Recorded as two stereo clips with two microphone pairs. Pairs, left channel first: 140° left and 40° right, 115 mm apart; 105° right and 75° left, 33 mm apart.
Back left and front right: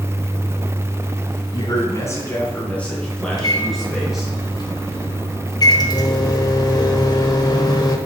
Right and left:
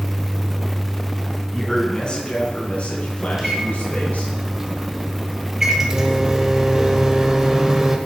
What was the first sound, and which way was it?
A man speaking, straight behind.